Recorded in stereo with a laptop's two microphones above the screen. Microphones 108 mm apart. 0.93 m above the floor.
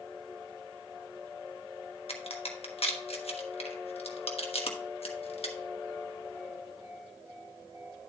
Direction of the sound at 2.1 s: 70° left (ahead or behind).